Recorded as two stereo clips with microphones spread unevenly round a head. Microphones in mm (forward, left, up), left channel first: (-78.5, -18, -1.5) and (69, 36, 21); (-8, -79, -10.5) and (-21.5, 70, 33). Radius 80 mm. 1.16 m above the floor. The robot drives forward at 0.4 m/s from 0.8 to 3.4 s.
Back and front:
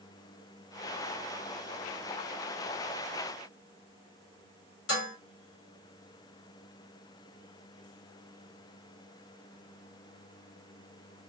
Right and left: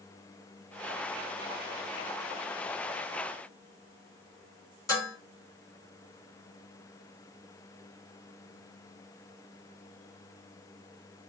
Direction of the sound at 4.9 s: 155° right.